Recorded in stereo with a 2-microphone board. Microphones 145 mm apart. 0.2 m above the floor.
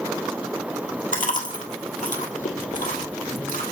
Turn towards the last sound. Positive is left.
turn(degrees=65)  # may be behind; listen again after turning